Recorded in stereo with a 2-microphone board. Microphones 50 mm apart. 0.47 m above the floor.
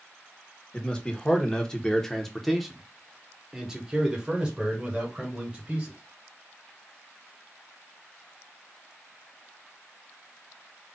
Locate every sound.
0.7 s a man speaking: 20° left (ahead or behind), 1.1 m; by 6.0 s 20° right (ahead or behind), 2 m